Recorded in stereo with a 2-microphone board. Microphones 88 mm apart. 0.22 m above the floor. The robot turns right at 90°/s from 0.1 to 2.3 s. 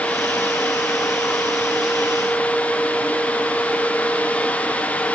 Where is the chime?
I don't hear a chime.